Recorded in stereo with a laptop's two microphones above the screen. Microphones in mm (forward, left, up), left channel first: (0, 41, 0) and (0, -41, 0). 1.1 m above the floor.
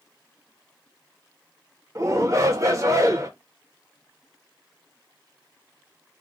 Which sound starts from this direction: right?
A shout, at 1.9 s.